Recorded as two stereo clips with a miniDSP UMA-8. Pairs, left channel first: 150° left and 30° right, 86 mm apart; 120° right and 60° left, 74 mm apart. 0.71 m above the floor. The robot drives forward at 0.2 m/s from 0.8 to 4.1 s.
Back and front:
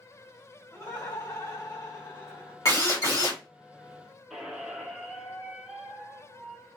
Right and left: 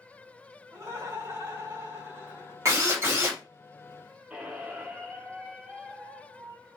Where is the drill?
105° left, 1.7 m; by 3.4 s 110° left, 1.7 m.